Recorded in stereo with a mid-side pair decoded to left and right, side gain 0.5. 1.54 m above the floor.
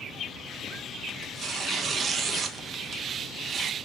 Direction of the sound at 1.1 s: 45° right.